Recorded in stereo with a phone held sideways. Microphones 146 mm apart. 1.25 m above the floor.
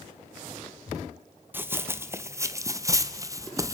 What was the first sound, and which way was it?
Running footsteps, 15° right (ahead or behind).